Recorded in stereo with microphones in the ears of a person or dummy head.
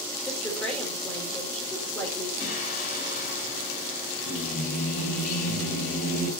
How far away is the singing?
About 3 m.